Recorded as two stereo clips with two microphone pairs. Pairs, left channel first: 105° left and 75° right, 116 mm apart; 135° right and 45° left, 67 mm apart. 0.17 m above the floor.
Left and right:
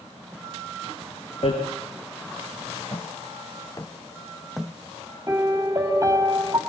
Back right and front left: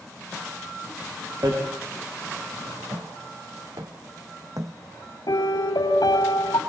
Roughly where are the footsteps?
Ahead left.